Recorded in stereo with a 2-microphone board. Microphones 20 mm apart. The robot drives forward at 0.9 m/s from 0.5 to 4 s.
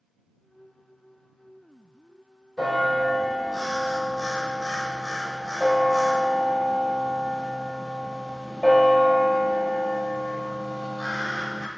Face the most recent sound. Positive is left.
turn(degrees=5)  # may be behind; listen again after turning